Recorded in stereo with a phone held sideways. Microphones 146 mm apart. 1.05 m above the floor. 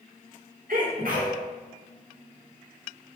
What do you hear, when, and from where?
0.7 s a sneeze: 70° right (ahead or behind), 3 m